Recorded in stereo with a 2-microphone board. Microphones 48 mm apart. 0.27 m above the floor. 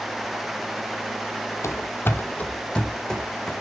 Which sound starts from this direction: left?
Running footsteps, at 1.6 s.